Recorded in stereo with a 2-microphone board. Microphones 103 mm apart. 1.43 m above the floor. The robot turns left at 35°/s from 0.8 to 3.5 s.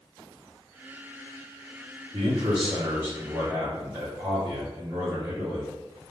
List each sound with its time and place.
2.1 s a man speaking: 105° right, 2.5 m; by 5.7 s 155° right, 2.5 m